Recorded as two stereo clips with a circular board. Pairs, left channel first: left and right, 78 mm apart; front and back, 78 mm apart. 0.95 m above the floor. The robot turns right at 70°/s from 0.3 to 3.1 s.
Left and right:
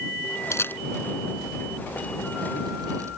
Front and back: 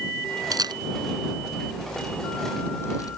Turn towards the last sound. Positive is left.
turn(degrees=-35)